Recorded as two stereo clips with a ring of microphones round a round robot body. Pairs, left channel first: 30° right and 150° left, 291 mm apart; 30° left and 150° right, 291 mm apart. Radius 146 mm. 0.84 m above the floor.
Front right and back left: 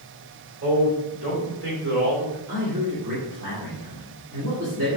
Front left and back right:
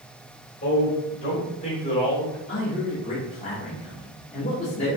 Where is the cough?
I don't hear a cough.